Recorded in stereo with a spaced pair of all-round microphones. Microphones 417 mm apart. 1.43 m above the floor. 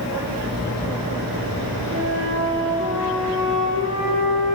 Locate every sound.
1.9 s a flute: 45° right (ahead or behind), 7 m